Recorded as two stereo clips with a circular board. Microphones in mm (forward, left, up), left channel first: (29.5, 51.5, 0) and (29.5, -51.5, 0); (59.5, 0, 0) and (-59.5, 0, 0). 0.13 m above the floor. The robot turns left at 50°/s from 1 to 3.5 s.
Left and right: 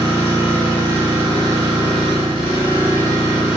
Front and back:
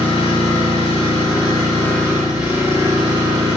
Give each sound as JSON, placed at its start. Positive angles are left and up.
{"t": 0.0, "sound": "an engine running", "azimuth_deg": -25, "distance_m": 1.9}